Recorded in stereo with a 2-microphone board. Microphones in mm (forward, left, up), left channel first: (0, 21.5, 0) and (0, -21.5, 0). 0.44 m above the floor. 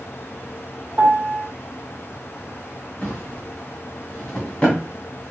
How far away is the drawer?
About 1.6 m.